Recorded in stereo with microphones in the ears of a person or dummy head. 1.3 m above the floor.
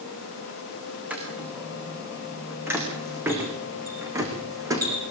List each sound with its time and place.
1.1 s footsteps: 10° right (ahead or behind), 6 m; by 5.0 s 20° right (ahead or behind), 4.5 m